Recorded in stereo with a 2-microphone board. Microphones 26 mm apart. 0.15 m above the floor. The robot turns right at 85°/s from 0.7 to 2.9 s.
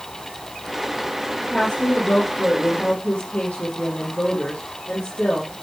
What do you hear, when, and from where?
1.5 s a woman speaking: 20° left, 3.5 m; by 5.5 s 135° left, 3.5 m